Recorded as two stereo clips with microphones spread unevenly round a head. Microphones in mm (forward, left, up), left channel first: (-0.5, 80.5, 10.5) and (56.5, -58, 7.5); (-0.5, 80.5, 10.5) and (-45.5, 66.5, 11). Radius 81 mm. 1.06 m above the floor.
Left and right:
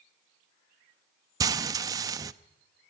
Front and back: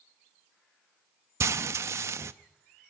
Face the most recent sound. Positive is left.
turn(degrees=-135)